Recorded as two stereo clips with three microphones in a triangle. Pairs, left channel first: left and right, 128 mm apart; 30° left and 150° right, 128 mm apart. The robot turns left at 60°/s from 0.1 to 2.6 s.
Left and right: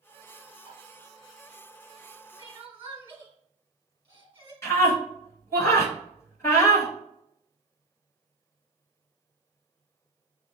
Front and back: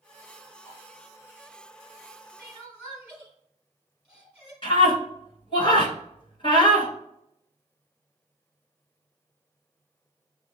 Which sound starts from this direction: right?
Crying, at 2.4 s.